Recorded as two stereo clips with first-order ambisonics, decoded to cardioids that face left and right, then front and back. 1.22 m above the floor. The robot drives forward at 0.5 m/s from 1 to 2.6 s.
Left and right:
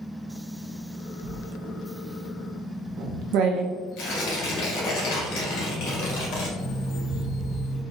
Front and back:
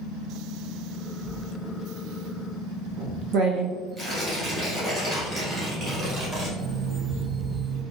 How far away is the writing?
About 0.6 m.